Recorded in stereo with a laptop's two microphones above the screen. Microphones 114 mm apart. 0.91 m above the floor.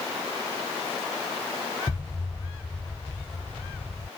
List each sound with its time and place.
1.9 s an explosion: 40° left (ahead or behind)